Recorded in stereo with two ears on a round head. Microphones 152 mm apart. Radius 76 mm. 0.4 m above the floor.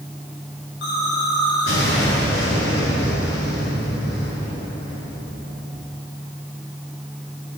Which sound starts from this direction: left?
An explosion, at 0.8 s.